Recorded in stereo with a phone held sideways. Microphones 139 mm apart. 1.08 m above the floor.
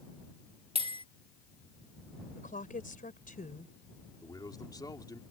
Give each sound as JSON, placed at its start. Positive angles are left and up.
{"t": 0.8, "sound": "a bell", "side_deg": -45}
{"t": 2.4, "sound": "a woman speaking", "side_deg": 85}
{"t": 4.2, "sound": "a man speaking", "side_deg": 30}